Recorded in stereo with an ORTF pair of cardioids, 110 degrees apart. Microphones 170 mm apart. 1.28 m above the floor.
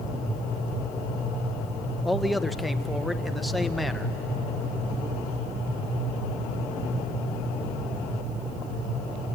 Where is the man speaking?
Straight ahead, 0.9 m.